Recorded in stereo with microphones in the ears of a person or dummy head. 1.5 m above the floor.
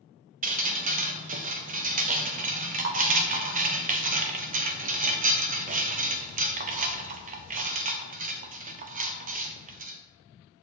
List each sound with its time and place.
0.4 s dripping: 40° right (ahead or behind), 0.5 m